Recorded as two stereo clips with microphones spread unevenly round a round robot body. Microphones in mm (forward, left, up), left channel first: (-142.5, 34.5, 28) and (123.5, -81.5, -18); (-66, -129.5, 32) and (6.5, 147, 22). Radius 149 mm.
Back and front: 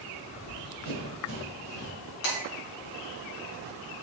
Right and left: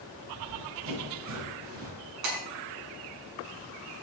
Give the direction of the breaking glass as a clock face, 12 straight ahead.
8 o'clock.